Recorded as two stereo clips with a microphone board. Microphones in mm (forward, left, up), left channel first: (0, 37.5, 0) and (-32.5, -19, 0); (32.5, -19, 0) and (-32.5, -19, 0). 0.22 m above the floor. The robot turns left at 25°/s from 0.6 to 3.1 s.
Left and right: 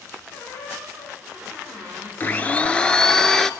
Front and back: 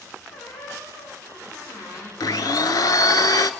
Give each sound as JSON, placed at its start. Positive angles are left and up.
{"t": 0.3, "sound": "a squeak", "azimuth_deg": 15, "distance_m": 9.0}
{"t": 2.2, "sound": "a blender", "azimuth_deg": 0, "distance_m": 0.6}